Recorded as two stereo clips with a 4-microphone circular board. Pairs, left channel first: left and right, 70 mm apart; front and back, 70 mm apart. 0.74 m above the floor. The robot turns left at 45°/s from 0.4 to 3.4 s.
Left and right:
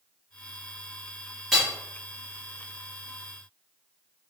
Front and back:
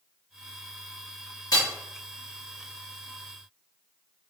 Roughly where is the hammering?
Ahead.